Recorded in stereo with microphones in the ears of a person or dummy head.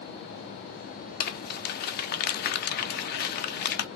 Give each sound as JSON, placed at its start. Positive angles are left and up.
{"t": 1.2, "sound": "crumpling", "side_deg": 45, "distance_m": 0.6}